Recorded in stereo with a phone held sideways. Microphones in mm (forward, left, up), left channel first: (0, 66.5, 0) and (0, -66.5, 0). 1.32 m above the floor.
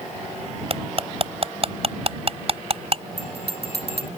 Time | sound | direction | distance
0.7 | cutlery clinking | 45° right (ahead or behind) | ?
3.2 | a bell | 50° left (ahead or behind) | ?